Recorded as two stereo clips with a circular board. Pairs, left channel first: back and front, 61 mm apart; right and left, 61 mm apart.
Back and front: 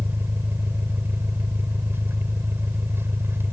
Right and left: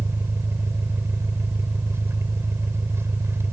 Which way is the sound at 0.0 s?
50° left.